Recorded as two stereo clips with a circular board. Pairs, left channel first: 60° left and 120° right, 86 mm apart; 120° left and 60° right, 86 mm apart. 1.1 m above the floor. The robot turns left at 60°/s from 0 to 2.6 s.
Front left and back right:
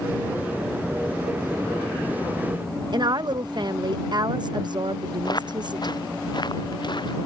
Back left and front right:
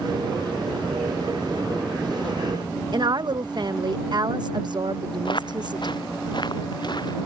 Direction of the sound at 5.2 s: 95° left.